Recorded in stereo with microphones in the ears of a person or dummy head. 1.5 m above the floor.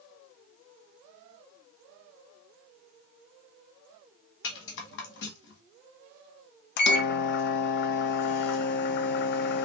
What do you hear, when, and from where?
4.4 s a rattle: 60° left (ahead or behind), 1.2 m
6.8 s a microwave: 60° left (ahead or behind), 0.5 m